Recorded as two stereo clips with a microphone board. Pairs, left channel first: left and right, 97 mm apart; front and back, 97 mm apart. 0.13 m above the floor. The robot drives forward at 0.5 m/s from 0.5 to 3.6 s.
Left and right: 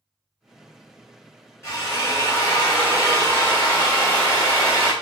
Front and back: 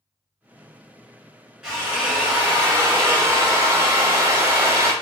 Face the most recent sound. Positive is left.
turn(degrees=140)